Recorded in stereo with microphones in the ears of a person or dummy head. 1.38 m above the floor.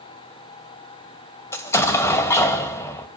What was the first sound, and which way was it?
An explosion, 20° left (ahead or behind).